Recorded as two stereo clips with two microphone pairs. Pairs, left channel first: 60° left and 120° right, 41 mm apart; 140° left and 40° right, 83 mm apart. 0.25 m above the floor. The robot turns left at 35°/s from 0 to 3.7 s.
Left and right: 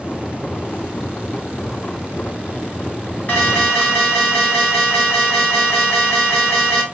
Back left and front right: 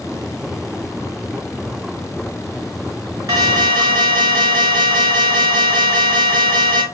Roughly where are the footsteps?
I don't hear footsteps.